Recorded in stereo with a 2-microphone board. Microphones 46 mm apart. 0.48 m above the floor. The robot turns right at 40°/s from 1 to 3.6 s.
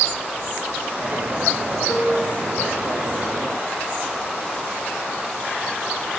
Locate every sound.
1.9 s a piano: 55° left (ahead or behind), 5.5 m; by 2.4 s 35° left (ahead or behind), 5.5 m